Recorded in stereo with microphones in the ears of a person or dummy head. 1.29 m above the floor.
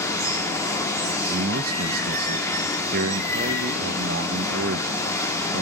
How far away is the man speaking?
About 1.0 m.